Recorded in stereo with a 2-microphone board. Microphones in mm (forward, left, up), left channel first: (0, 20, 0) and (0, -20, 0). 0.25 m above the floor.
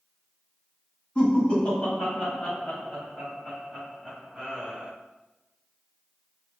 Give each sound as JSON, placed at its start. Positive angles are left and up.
{"t": 1.1, "sound": "laughter", "side_deg": 30, "distance_m": 1.6}